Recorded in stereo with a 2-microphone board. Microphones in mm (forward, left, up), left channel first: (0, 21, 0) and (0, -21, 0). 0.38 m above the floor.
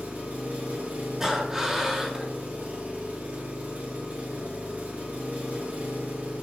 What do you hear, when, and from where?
0.0 s an engine running: 40° right (ahead or behind), 2.5 m
1.2 s breathing: 15° right (ahead or behind), 1.8 m